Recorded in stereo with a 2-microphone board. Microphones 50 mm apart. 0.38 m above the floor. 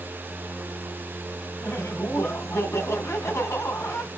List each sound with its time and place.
1.6 s laughter: 65° left (ahead or behind), 3 m